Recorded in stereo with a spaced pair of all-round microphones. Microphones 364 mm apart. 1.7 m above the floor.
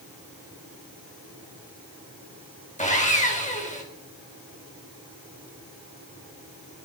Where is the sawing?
20° left (ahead or behind), 1.2 m.